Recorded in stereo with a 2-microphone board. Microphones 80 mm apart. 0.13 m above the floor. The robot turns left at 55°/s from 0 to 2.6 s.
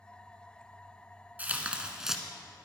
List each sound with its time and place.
1.4 s tearing paper: 20° right (ahead or behind), 1.3 m; by 2.2 s 5° right (ahead or behind), 1.3 m